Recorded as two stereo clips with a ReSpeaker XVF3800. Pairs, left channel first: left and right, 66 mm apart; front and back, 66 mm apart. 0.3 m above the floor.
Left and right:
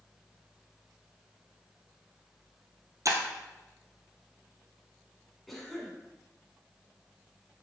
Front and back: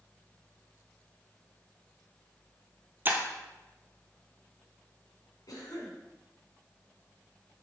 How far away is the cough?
About 2.5 m.